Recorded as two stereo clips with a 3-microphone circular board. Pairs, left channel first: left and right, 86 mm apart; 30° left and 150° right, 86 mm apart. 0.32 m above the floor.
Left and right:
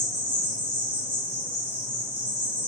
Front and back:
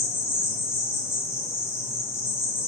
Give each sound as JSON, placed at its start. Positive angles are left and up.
{"t": 0.0, "sound": "an insect", "azimuth_deg": -25, "distance_m": 1.1}